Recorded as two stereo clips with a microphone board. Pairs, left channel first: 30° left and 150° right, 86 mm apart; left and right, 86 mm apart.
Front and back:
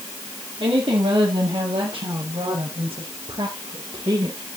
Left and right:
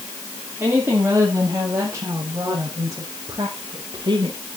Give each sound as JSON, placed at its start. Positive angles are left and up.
{"t": 0.6, "sound": "a woman speaking", "azimuth_deg": -160, "distance_m": 6.5}